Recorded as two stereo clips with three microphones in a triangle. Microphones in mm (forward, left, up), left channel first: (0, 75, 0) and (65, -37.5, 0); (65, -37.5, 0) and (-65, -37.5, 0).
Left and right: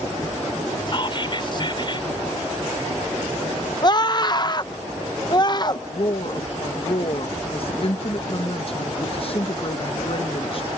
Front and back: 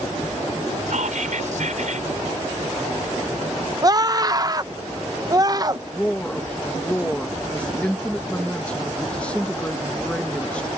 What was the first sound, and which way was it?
Whispering, 170° left.